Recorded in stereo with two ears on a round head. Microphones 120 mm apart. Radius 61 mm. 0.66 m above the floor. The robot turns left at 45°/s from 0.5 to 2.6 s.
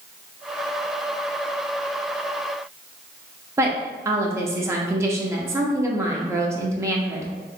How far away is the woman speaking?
About 0.5 m.